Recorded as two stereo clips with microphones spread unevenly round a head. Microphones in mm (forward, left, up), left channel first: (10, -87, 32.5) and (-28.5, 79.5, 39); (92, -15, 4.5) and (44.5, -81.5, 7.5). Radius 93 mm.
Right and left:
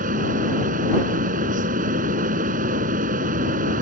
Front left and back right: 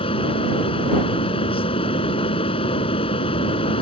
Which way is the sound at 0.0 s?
55° left.